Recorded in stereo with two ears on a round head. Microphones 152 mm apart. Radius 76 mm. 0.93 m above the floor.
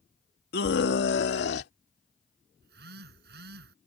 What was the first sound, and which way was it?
A scream, 60° left (ahead or behind).